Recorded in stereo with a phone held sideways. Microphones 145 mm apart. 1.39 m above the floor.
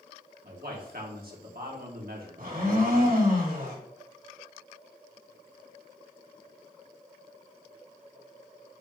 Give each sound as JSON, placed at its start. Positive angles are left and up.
{"t": 0.4, "sound": "a man speaking", "side_deg": -75, "distance_m": 1.9}
{"t": 2.4, "sound": "a blender", "side_deg": -70, "distance_m": 3.0}